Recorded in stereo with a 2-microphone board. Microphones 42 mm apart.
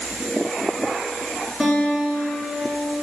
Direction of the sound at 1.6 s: 5° left (ahead or behind).